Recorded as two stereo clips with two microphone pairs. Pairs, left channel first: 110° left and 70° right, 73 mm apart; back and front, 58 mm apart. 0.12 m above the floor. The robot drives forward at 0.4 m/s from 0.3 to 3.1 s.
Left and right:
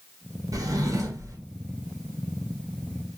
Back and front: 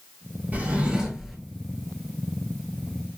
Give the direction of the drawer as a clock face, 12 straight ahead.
2 o'clock.